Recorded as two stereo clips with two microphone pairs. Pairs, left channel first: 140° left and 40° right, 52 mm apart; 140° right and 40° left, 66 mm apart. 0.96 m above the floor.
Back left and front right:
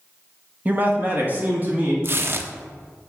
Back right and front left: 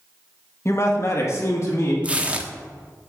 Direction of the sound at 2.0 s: 25° right.